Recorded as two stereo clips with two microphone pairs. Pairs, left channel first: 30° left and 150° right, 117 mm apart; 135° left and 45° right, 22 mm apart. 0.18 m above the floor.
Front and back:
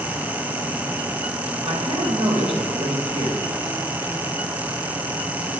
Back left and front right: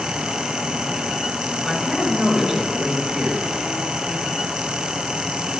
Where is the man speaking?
130° right, 5.5 m.